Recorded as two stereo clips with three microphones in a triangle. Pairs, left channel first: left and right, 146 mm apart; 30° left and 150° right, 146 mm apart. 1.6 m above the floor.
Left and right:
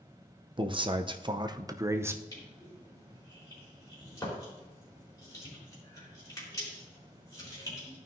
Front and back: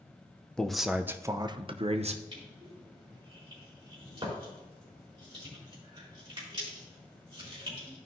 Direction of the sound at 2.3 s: 155° left.